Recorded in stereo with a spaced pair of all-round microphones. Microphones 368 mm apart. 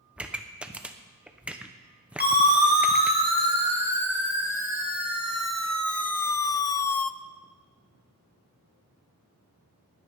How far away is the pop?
About 0.8 m.